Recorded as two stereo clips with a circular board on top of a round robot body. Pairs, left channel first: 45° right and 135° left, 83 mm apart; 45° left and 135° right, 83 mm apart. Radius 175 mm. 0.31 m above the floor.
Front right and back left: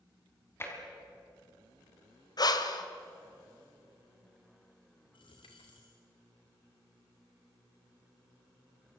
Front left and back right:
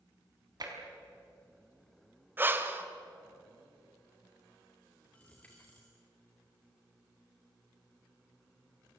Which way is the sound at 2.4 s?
75° right.